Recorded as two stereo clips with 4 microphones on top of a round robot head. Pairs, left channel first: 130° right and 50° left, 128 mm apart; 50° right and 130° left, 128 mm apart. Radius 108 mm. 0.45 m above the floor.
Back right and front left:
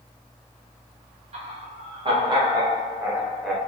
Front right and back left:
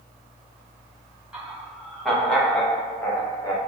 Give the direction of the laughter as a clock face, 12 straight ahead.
10 o'clock.